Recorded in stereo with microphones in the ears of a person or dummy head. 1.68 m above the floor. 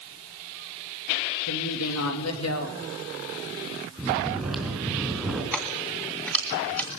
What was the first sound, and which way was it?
A woman speaking, 85° left.